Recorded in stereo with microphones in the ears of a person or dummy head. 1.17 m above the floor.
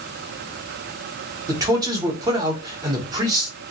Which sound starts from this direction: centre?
A man speaking, at 1.5 s.